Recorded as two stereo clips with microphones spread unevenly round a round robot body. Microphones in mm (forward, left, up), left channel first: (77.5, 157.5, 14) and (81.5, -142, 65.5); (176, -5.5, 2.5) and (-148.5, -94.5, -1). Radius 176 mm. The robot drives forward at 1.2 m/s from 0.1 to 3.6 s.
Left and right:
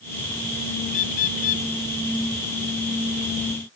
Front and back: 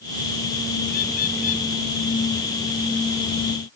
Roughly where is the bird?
Left.